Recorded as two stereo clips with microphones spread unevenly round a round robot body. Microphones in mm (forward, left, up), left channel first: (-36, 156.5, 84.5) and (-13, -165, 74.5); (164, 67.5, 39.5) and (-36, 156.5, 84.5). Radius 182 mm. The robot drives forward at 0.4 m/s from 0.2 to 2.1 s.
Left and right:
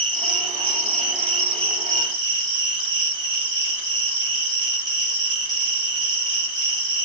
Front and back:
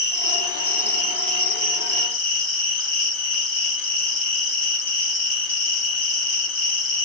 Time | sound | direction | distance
0.0 | an insect | 85° right | 2.5 m